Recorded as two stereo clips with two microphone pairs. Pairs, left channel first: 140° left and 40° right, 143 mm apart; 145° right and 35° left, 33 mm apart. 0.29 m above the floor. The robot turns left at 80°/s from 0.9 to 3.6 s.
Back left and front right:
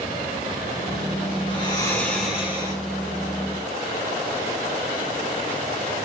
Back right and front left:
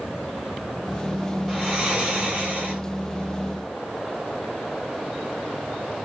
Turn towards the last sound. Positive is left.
turn(degrees=-55)